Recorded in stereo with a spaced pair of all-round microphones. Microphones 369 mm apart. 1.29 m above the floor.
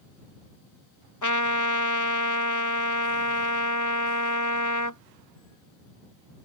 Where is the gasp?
No gasp in this recording.